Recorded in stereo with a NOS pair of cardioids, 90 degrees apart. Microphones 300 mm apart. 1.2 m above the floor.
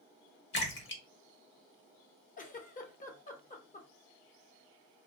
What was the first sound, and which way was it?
A splash, 40° left.